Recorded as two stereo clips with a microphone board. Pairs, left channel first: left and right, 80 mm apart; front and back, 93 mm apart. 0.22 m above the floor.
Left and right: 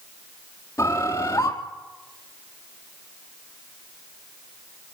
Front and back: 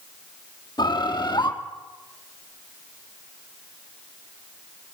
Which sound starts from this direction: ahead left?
A bird, at 0.8 s.